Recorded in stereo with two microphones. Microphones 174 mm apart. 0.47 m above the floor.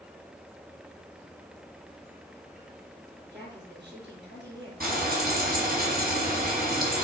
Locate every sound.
3.3 s a woman speaking: 85° right, 6.5 m
4.8 s frying: 55° right (ahead or behind), 4.5 m